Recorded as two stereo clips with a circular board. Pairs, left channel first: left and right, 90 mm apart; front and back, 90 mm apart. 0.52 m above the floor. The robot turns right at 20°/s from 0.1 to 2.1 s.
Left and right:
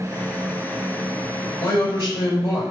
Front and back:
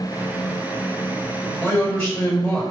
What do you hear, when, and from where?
1.6 s a man speaking: 70° left, 1.9 m; by 2.6 s 80° left, 1.9 m